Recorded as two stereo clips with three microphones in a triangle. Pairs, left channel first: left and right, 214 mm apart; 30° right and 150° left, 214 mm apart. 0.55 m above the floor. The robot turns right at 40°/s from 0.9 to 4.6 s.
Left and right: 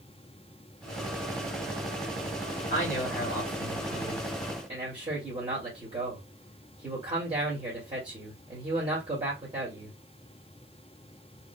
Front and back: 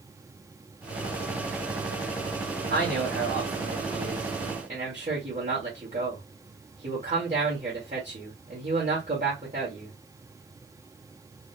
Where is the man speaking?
130° left, 1.8 m; by 9.9 s 155° right, 1.8 m.